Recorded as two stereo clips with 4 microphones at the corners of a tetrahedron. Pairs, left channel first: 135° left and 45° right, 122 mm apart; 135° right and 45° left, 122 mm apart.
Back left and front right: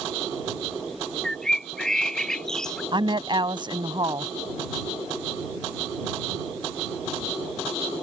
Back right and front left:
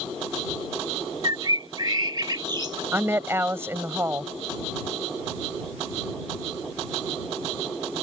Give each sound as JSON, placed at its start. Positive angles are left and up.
{"t": 1.2, "sound": "a bird", "azimuth_deg": 55}
{"t": 2.9, "sound": "a woman speaking", "azimuth_deg": -20}